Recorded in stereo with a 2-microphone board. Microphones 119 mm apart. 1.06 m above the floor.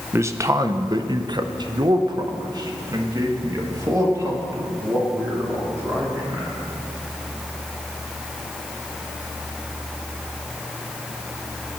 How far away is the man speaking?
About 0.9 m.